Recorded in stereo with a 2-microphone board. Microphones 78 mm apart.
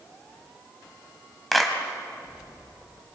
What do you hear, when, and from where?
1.5 s a clap: 5° left (ahead or behind), 2 m